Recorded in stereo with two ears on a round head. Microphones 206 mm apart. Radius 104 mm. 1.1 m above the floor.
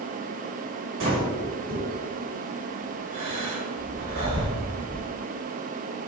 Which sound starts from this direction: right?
Breathing, at 1.0 s.